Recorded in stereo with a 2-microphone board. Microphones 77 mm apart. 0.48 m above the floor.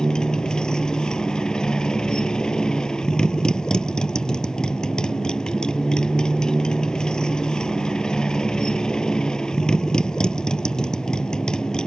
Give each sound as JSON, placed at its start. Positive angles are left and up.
{"t": 0.0, "sound": "a motorcycle", "side_deg": 10}